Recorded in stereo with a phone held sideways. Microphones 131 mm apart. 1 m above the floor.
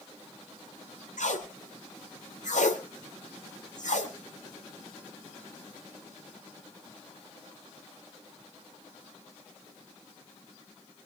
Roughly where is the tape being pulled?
Left.